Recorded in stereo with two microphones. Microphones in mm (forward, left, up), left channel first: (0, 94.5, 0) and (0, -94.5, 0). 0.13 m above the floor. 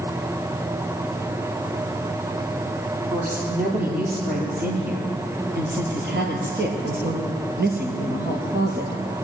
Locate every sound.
3.1 s a woman speaking: 50° right (ahead or behind), 4 m; by 9.0 s 55° right (ahead or behind), 3.5 m